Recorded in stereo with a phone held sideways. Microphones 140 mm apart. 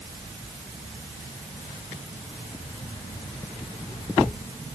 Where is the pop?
No pop in this recording.